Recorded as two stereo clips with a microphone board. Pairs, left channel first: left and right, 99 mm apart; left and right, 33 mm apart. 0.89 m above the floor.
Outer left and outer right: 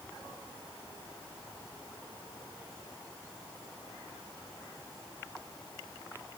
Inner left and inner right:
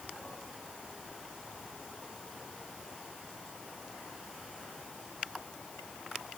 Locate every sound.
Only background noise.